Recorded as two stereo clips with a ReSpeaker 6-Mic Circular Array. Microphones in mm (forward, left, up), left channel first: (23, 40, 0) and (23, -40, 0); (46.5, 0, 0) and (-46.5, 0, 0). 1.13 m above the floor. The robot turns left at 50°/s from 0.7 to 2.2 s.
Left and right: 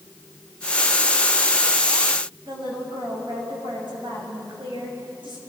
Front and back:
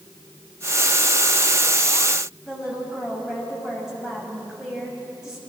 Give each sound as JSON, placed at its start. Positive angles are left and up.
{"t": 2.5, "sound": "a woman speaking", "azimuth_deg": -95, "distance_m": 6.5}